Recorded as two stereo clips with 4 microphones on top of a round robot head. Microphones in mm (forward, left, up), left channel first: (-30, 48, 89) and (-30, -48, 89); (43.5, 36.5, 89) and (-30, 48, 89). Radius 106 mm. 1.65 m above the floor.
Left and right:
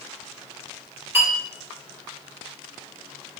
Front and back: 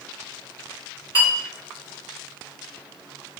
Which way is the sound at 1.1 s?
155° right.